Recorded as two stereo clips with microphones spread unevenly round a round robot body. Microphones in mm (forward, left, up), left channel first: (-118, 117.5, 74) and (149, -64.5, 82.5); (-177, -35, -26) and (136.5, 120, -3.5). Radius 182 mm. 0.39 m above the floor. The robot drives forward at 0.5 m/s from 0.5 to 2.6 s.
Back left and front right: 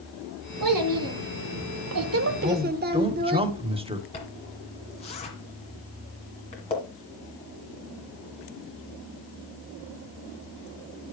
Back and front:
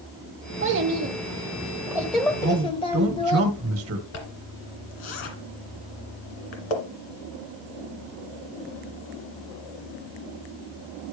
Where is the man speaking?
25° left, 1.4 m; by 4.0 s 30° left, 1.3 m.